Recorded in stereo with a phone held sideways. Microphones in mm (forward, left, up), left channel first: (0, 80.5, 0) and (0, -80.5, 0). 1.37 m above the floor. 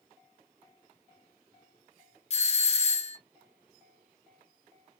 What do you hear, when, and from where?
2.3 s a doorbell: 40° left (ahead or behind), 0.5 m